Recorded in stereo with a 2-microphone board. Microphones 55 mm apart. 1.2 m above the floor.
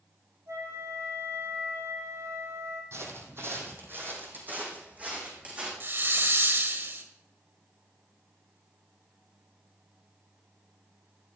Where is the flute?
75° right (ahead or behind), 7 m.